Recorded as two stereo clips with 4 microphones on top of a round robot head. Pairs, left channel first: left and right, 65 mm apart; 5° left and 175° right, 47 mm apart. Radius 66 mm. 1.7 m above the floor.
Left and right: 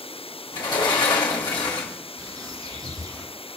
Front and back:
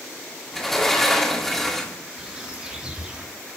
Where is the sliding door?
90° left, 1.6 m.